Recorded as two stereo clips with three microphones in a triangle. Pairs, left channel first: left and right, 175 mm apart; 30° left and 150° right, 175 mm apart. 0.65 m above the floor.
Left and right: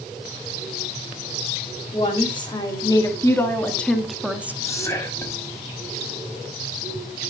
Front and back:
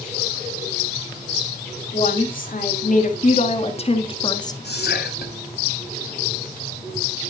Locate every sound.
1.9 s a woman speaking: 40° left, 2 m; by 4.5 s 20° right, 1.3 m
4.6 s whispering: 15° left, 5.5 m